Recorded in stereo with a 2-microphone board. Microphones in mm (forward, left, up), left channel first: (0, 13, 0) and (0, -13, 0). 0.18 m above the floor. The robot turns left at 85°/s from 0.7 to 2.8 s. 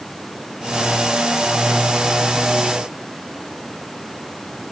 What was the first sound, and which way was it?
Only background noise.